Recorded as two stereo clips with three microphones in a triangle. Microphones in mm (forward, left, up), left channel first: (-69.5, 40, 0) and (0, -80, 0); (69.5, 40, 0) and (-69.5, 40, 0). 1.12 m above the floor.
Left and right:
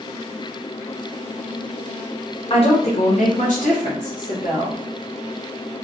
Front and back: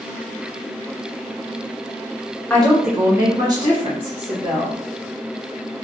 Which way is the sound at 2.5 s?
80° left.